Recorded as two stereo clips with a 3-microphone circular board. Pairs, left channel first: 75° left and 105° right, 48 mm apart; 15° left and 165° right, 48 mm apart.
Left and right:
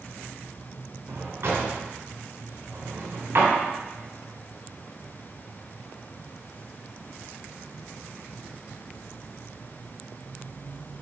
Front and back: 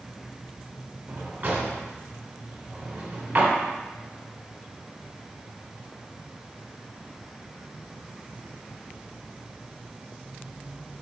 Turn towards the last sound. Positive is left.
turn(degrees=-125)